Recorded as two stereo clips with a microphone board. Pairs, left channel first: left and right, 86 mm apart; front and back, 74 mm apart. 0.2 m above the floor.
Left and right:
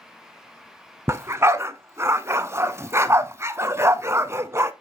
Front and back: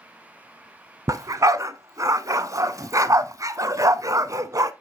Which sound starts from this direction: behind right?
A dog barking, at 1.1 s.